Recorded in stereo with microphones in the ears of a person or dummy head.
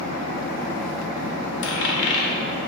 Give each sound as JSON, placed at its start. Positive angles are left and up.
{"t": 1.6, "sound": "a dropped coin", "side_deg": 65, "distance_m": 1.3}